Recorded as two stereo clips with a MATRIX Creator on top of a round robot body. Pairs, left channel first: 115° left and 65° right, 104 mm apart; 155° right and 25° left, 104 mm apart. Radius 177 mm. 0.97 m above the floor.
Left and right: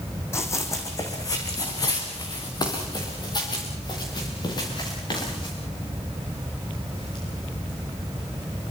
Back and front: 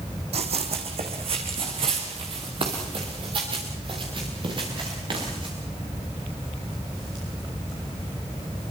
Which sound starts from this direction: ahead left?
Running footsteps, at 0.3 s.